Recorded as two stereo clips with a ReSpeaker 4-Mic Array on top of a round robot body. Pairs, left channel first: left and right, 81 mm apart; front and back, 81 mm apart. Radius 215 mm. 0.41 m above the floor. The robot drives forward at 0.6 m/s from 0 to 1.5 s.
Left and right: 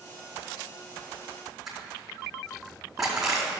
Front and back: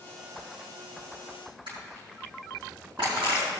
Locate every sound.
1.7 s crushing: straight behind, 5 m